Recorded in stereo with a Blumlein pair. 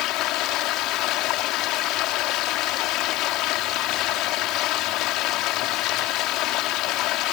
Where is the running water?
40° left.